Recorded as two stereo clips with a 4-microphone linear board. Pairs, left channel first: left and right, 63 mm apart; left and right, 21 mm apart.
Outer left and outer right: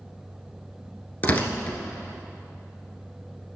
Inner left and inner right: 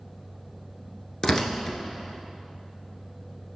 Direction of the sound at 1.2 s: 30° left (ahead or behind).